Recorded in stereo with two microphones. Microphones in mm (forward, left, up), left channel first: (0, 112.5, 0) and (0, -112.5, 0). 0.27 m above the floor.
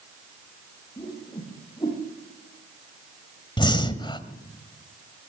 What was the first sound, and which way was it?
A whoosh, 20° left (ahead or behind).